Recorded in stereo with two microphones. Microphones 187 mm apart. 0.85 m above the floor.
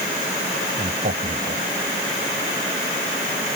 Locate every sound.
0.8 s a man speaking: 60° right (ahead or behind)